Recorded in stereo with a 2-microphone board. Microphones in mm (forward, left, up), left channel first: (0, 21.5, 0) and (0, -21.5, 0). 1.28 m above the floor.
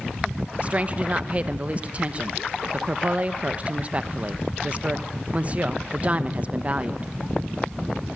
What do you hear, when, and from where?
0.6 s a woman speaking: 30° right (ahead or behind), 1.0 m